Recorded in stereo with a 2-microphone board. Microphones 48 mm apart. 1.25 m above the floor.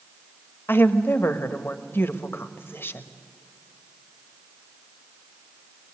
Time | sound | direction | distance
0.7 | a woman speaking | 55° left (ahead or behind) | 1.1 m